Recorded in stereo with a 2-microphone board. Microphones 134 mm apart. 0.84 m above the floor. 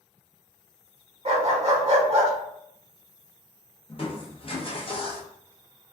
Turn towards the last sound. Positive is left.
turn(degrees=40)  # may be behind; listen again after turning